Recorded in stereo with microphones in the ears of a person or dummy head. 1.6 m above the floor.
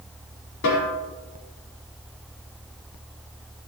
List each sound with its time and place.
0.6 s a snare drum: 60° left (ahead or behind), 5 m